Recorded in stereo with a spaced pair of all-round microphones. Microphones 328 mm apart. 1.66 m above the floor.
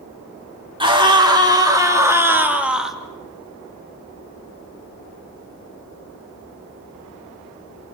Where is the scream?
15° right (ahead or behind), 4 m; by 3.0 s centre (ahead or behind), 2 m.